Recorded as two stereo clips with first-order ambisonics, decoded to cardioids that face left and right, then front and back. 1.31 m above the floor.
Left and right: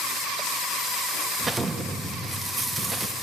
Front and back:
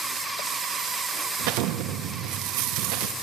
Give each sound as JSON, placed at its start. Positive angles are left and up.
{"t": 1.4, "sound": "an explosion", "azimuth_deg": -165, "distance_m": 0.7}